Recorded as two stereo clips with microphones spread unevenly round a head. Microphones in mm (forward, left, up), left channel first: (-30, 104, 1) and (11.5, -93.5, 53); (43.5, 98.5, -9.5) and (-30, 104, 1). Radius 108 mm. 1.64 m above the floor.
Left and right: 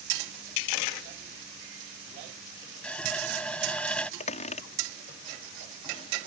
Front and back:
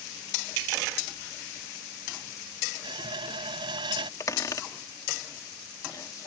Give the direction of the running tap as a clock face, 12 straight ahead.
6 o'clock.